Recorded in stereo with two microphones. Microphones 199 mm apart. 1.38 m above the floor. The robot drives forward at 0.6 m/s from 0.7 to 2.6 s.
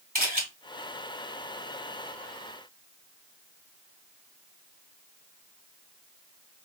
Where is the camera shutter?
45° right (ahead or behind), 2.5 m.